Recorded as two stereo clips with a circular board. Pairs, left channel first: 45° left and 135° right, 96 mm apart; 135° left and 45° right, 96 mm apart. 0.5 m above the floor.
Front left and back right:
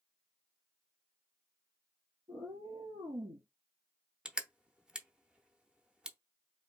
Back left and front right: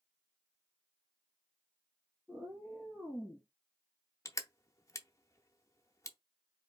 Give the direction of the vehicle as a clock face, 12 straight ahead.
I don't hear a vehicle.